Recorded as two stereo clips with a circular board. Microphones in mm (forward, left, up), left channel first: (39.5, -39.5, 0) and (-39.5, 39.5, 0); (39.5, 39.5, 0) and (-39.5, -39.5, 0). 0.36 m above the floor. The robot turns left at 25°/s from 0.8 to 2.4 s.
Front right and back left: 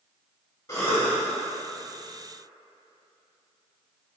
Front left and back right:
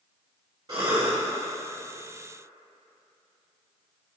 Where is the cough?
90° right, 1.5 m; by 1.2 s 100° right, 1.5 m.